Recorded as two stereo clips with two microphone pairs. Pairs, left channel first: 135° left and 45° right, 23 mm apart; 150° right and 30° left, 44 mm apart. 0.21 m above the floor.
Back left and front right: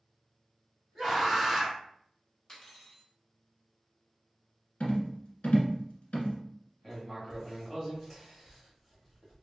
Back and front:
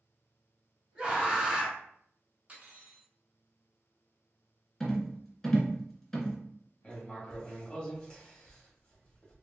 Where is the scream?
50° left, 1.7 m.